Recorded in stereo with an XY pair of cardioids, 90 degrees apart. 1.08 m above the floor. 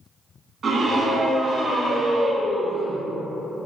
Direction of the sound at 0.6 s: 50° right.